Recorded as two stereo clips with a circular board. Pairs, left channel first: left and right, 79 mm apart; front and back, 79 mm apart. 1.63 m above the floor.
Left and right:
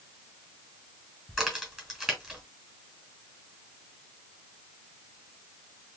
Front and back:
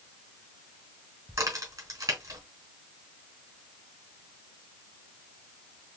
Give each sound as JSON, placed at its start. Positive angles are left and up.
{"t": 1.3, "sound": "a crack", "azimuth_deg": 180, "distance_m": 2.0}